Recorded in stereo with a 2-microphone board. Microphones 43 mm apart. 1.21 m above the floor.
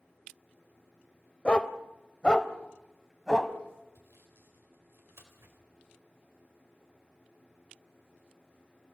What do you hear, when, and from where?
1.4 s a dog barking: 25° left (ahead or behind), 1.0 m; by 3.5 s 15° left (ahead or behind), 1.8 m
4.0 s sawing: 75° right (ahead or behind), 4 m